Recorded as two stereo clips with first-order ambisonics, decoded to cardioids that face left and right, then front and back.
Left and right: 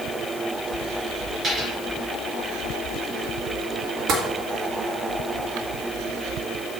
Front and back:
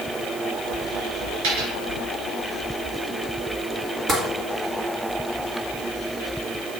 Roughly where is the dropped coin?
Behind.